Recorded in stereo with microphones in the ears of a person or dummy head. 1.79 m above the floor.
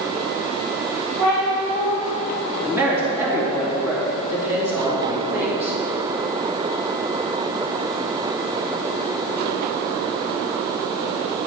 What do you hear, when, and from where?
1.2 s a cat meowing: 20° right (ahead or behind), 1.7 m
2.6 s a man speaking: 10° right (ahead or behind), 2.5 m